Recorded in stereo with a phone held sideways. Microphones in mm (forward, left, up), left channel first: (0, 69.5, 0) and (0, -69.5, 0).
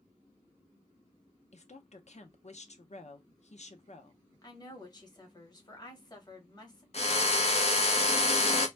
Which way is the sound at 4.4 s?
30° left (ahead or behind).